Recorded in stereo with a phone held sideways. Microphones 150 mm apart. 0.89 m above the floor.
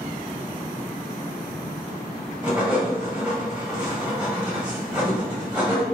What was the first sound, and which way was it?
Writing, 5° right (ahead or behind).